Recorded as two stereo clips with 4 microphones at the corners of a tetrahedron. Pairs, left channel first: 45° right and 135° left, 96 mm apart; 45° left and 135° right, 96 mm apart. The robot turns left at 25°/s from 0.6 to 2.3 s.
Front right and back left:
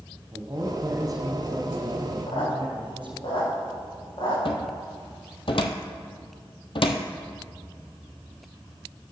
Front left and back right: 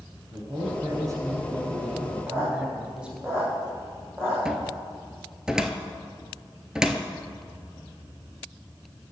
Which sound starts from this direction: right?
A squeak, at 2.3 s.